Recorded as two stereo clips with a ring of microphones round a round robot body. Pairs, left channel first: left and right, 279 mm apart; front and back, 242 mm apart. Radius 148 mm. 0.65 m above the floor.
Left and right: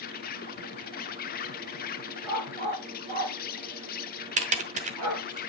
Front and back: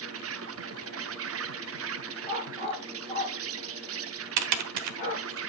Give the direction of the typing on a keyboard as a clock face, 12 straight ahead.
5 o'clock.